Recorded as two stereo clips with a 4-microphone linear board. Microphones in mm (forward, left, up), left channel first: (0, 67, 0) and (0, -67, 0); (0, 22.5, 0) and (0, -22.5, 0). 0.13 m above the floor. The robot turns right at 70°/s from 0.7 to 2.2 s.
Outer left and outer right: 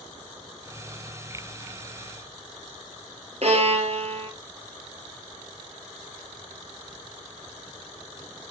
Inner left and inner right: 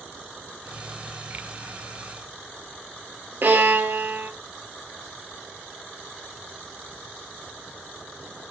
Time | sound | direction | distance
3.4 | a violin | 50° right (ahead or behind) | 1.8 m